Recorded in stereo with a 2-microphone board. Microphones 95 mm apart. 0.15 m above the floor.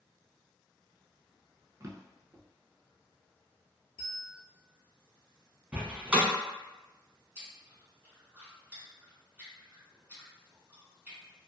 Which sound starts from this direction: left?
A bell, at 4.0 s.